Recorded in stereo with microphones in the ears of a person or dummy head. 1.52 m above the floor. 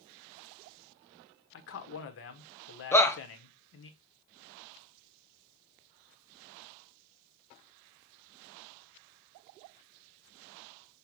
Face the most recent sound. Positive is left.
turn(degrees=10)  # may be behind; listen again after turning